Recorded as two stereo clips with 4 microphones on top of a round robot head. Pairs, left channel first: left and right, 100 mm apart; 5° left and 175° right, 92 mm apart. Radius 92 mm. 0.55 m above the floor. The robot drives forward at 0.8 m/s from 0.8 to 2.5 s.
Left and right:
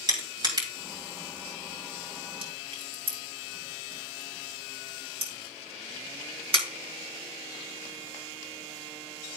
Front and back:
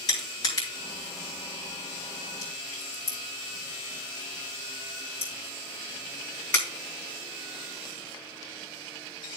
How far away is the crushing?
About 3.5 m.